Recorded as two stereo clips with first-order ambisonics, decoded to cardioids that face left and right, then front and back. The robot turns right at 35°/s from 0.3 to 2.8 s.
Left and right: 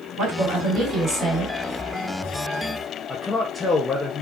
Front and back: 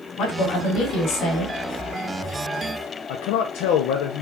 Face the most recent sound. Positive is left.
turn(degrees=10)